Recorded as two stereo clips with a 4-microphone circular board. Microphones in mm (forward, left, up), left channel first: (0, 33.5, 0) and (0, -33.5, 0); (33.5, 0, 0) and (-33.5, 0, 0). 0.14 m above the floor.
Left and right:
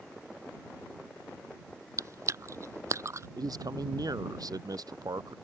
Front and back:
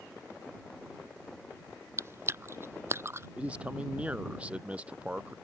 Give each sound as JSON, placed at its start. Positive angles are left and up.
{"t": 2.0, "sound": "chewing", "azimuth_deg": -130}
{"t": 3.4, "sound": "a man speaking", "azimuth_deg": -110}